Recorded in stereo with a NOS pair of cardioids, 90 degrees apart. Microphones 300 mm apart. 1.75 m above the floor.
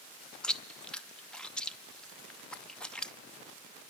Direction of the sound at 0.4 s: 5° left.